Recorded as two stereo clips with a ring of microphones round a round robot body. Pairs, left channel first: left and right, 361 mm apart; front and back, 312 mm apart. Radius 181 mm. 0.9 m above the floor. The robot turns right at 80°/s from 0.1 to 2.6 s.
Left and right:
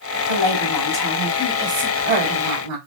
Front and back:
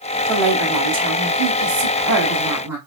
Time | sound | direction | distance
0.3 | a woman speaking | 80° left | 2.5 m